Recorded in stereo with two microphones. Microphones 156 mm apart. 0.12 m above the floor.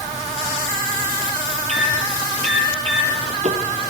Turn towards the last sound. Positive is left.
turn(degrees=-50)  # may be behind; listen again after turning